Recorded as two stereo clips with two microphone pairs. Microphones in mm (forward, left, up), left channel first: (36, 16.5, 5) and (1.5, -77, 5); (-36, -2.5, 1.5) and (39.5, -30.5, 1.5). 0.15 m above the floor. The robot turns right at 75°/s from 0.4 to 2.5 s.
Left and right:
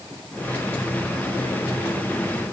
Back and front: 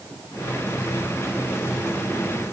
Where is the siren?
No siren in this recording.